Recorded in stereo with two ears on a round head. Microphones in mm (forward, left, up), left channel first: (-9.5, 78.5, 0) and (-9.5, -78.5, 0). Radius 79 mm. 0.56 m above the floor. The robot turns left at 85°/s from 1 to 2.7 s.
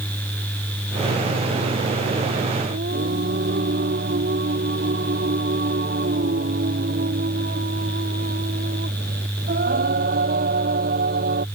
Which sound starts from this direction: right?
Singing, at 2.7 s.